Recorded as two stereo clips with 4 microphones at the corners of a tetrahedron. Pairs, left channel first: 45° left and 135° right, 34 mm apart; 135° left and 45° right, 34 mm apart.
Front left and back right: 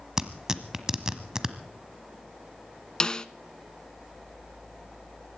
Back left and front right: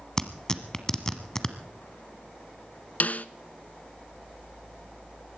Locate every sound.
0.2 s tearing paper: 175° left, 1.2 m
3.0 s a snare drum: 105° left, 0.5 m